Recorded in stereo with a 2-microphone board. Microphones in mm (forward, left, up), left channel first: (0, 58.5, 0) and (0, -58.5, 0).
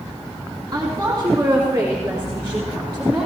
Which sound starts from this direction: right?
A woman speaking, at 0.7 s.